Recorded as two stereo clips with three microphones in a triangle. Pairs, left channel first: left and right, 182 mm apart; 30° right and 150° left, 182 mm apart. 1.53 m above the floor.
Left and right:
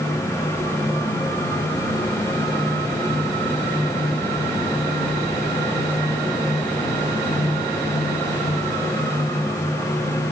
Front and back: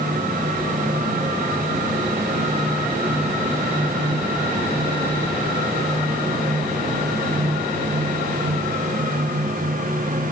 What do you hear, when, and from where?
Only background noise.